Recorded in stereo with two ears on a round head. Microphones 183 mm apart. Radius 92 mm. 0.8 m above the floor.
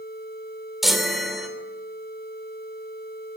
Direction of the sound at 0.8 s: Centre (ahead or behind).